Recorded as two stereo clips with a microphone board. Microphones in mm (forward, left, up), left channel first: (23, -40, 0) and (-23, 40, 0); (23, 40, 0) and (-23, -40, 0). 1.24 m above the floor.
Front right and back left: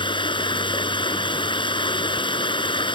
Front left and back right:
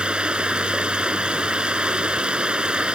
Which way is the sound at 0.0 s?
40° right.